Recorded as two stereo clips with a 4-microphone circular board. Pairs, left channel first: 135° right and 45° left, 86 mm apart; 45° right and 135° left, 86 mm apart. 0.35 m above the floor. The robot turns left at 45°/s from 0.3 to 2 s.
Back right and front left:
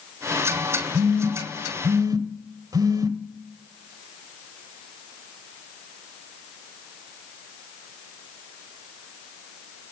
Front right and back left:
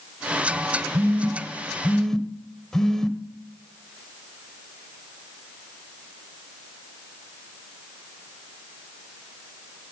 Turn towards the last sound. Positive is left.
turn(degrees=35)